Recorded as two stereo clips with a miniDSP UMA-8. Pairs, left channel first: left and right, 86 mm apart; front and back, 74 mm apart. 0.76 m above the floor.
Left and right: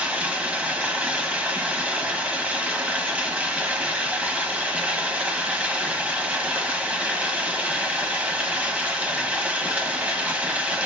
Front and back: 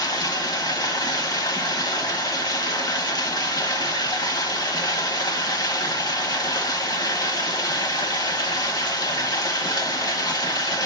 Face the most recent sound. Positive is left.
turn(degrees=-20)